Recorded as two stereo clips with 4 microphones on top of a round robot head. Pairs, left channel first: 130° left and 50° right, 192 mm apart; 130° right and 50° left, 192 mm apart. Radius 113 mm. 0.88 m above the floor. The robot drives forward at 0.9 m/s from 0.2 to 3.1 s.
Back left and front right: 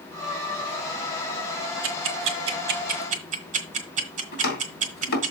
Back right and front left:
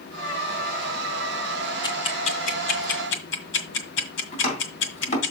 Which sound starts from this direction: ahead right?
Ticking, at 1.8 s.